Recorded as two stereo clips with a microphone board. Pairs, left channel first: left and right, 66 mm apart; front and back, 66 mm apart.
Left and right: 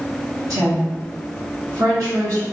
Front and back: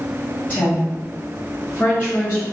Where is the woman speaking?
65° right, 1.8 m.